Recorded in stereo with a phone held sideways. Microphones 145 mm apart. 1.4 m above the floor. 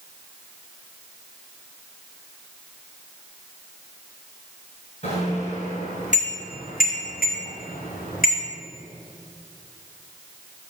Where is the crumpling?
No crumpling in this recording.